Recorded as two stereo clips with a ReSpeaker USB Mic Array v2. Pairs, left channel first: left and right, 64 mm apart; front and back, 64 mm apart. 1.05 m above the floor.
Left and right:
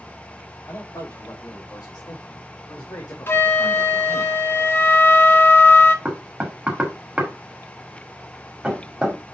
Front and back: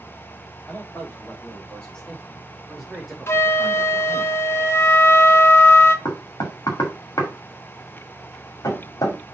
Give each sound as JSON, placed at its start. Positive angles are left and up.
{"t": 0.7, "sound": "a man speaking", "azimuth_deg": 65, "distance_m": 2.5}
{"t": 3.3, "sound": "a flute", "azimuth_deg": 40, "distance_m": 0.8}
{"t": 6.0, "sound": "knocking", "azimuth_deg": -15, "distance_m": 1.8}